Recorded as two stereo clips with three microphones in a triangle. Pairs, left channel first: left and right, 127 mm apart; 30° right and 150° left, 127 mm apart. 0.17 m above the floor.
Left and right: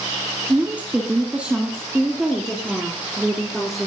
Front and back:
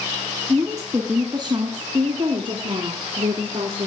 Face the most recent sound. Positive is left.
turn(degrees=-175)